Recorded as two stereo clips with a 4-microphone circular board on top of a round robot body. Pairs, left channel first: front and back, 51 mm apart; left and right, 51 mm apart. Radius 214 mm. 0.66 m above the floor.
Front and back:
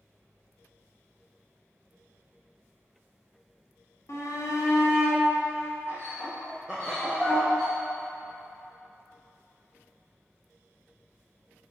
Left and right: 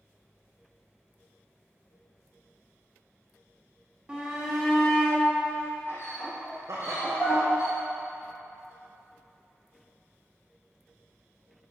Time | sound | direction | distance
4.1 | a shout | 20° right | 2.5 m
6.7 | laughter | 80° right | 1.1 m